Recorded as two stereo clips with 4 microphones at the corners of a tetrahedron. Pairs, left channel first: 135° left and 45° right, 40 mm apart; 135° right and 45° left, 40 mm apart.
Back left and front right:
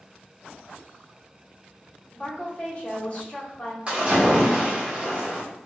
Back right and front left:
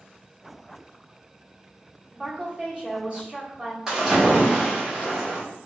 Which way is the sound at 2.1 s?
90° left.